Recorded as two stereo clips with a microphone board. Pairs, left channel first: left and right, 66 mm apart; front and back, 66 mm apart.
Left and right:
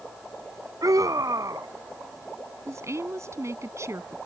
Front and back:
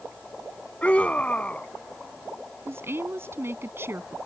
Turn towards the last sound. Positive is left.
turn(degrees=-130)